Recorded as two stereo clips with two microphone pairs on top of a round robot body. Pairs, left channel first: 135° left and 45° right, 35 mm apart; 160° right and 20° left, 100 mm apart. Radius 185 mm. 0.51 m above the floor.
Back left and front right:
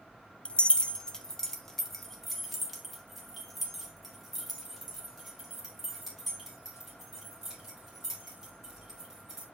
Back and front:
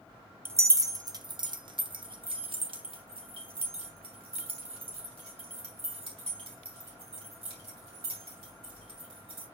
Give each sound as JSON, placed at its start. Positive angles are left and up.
{"t": 0.5, "sound": "keys jangling", "azimuth_deg": 85, "distance_m": 0.8}